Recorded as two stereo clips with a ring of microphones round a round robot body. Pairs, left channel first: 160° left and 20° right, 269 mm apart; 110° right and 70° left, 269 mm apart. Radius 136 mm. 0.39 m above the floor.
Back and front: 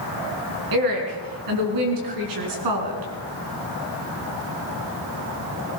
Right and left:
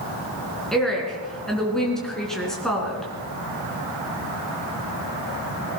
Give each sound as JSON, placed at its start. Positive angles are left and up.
{"t": 0.7, "sound": "a woman speaking", "azimuth_deg": -25, "distance_m": 4.0}